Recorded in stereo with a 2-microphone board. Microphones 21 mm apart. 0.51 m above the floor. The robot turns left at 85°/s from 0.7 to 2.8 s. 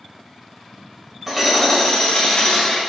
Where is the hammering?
165° right, 2 m; by 2.8 s 65° left, 2 m.